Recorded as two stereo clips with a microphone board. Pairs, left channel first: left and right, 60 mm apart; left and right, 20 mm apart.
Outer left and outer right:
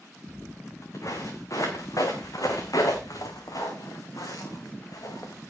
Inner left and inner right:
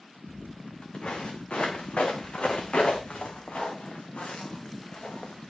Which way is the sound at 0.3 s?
55° left (ahead or behind).